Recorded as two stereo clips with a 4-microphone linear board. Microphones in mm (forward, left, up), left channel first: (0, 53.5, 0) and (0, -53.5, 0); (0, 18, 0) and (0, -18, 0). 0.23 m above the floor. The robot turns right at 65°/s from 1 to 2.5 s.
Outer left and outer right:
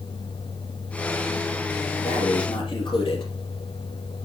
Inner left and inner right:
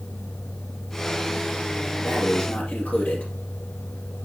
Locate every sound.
2.0 s breathing: 75° left (ahead or behind), 3 m; by 3.3 s 50° left (ahead or behind), 3 m